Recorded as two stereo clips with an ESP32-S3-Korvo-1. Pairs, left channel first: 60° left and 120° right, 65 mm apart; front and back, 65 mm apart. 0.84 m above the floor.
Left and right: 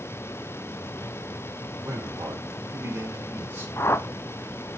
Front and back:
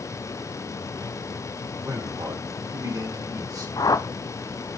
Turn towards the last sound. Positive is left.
turn(degrees=10)